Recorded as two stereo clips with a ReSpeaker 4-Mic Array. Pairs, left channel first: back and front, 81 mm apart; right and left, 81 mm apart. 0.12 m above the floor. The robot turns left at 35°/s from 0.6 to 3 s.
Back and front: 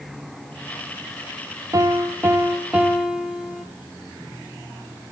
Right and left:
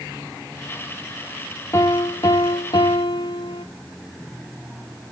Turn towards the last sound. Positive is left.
turn(degrees=-85)